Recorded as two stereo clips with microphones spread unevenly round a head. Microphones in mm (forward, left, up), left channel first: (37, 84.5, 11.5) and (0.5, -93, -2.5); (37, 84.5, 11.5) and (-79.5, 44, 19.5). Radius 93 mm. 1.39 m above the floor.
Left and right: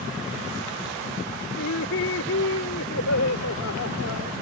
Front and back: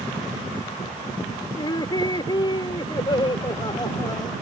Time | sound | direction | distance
1.6 | laughter | 75° left | ?